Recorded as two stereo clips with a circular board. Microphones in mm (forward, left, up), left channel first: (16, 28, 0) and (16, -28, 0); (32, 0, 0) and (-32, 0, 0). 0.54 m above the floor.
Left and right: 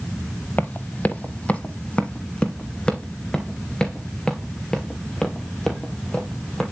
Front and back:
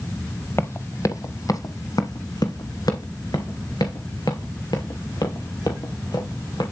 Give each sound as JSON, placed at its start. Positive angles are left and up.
{"t": 0.6, "sound": "running footsteps", "azimuth_deg": 40, "distance_m": 0.8}